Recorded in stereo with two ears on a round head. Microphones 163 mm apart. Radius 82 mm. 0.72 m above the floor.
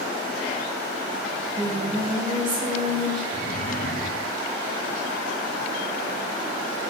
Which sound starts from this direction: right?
Singing, at 1.3 s.